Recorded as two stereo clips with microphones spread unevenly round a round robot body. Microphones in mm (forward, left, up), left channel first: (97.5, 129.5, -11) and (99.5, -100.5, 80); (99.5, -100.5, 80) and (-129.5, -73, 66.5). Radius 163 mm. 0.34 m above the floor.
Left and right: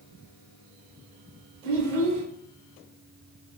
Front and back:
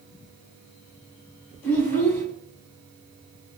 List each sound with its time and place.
1.6 s a child speaking: 90° right, 2 m